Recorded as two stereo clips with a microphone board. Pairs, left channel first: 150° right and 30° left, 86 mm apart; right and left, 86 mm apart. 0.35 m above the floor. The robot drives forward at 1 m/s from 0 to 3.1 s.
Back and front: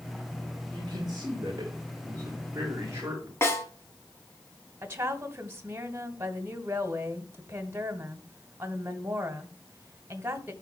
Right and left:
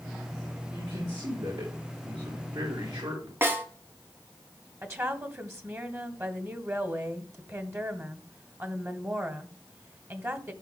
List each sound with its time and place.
0.7 s a man speaking: 65° left, 6 m; by 3.3 s 90° left, 5.5 m
3.4 s a snare drum: 150° left, 1.9 m
4.8 s a woman speaking: 70° left, 1.4 m